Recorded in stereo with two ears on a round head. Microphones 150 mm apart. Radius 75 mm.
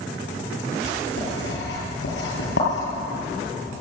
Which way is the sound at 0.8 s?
75° left (ahead or behind).